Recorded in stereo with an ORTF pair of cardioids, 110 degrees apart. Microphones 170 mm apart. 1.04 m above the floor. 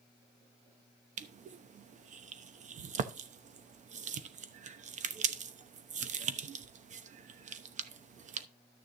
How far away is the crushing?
About 0.9 m.